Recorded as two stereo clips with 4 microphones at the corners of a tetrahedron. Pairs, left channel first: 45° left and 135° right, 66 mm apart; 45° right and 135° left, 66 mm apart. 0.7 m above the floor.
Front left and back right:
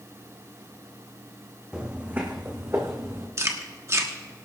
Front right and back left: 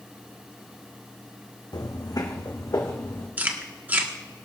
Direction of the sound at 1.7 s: 60° right.